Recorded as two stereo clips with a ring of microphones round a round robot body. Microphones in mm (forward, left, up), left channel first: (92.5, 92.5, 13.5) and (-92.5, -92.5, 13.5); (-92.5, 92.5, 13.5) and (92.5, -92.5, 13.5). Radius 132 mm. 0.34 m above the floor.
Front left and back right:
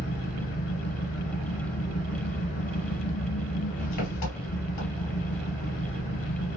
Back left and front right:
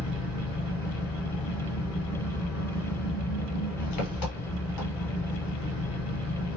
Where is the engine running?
105° left, 1.7 m.